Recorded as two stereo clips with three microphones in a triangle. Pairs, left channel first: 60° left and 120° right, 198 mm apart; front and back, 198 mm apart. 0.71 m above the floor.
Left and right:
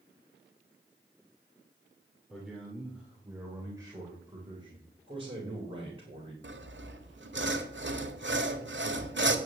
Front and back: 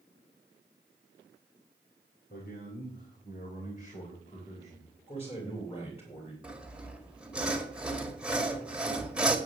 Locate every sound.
2.3 s a man speaking: 30° right, 2.5 m; by 5.0 s 55° right, 4 m
5.1 s a man speaking: 60° right, 3.5 m
6.4 s sawing: 95° right, 1.6 m